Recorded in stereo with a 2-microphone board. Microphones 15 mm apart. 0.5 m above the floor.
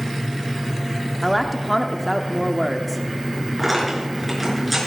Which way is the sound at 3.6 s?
5° right (ahead or behind).